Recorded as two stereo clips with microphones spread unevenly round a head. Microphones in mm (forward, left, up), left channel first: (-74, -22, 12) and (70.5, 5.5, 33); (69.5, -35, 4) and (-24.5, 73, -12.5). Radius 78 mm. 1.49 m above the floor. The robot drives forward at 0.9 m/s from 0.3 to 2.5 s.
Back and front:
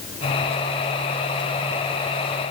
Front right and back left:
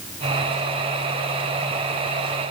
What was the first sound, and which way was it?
Only background noise.